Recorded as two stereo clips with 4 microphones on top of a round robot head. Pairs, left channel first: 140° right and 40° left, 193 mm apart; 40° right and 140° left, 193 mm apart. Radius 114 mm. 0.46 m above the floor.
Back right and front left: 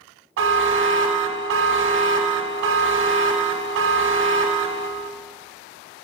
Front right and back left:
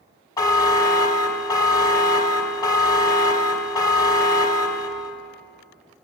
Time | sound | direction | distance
0.4 | a buzzer | 35° left | 0.7 m